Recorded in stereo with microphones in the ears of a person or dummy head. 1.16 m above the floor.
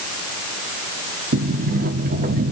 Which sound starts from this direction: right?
A sliding door, at 1.3 s.